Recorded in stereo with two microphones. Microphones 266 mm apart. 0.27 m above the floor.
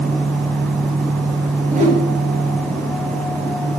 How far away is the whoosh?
About 4.5 m.